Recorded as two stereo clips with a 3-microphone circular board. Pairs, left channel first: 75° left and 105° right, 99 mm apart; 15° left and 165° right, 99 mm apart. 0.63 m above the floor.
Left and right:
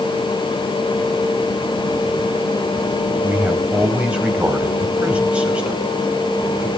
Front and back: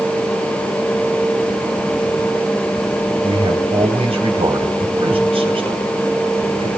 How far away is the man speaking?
About 3.5 m.